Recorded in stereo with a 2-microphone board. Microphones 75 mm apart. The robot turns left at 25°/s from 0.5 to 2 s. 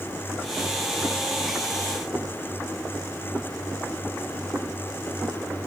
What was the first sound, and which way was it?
Only background noise.